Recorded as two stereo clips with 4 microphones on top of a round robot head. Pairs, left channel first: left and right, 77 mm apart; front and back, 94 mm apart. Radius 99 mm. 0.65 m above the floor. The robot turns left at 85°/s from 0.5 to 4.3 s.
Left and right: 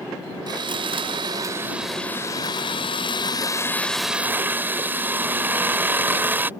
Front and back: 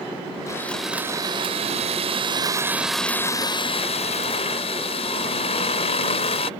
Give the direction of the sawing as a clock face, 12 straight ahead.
2 o'clock.